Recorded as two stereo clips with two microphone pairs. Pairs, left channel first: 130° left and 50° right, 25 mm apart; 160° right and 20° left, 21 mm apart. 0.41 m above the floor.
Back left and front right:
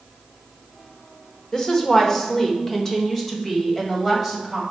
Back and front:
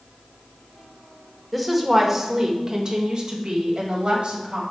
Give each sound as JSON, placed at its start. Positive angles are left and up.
{"t": 1.5, "sound": "a woman speaking", "azimuth_deg": 110, "distance_m": 1.0}